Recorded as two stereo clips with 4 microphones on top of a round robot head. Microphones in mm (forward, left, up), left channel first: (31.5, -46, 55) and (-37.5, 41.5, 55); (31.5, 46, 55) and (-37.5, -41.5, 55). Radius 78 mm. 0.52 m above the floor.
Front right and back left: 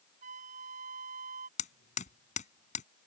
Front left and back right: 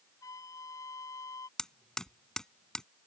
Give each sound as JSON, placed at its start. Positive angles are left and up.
{"t": 0.2, "sound": "a flute", "azimuth_deg": 115}
{"t": 1.6, "sound": "hammering", "azimuth_deg": -35}